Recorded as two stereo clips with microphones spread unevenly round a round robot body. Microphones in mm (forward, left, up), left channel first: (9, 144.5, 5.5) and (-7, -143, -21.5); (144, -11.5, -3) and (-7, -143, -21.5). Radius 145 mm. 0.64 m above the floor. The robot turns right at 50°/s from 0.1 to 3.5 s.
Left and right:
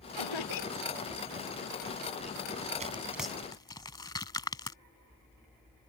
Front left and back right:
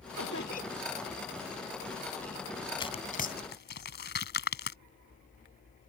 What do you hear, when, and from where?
0.1 s laughter: 85° left; by 0.8 s 120° left
2.8 s tearing paper: 25° right; by 4.8 s 10° left